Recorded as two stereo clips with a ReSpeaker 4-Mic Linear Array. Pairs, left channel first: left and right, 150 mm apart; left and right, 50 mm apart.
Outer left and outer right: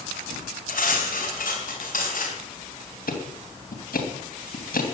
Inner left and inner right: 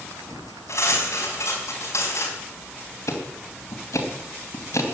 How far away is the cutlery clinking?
About 5 m.